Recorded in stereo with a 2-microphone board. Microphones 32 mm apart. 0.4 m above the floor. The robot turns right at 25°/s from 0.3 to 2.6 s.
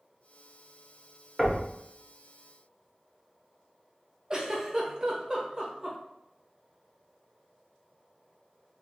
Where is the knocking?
20° right (ahead or behind), 0.7 m.